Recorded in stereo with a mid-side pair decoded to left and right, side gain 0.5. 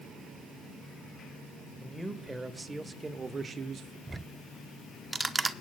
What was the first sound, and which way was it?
A man speaking, 5° right.